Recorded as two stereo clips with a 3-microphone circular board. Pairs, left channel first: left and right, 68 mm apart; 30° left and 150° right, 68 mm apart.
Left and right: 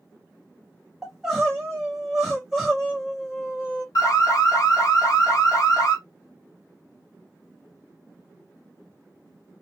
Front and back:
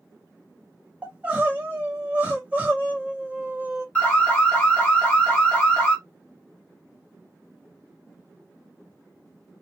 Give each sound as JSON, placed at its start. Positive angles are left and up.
{"t": 1.0, "sound": "crying", "azimuth_deg": -175, "distance_m": 1.0}
{"t": 4.0, "sound": "an alarm", "azimuth_deg": 95, "distance_m": 1.1}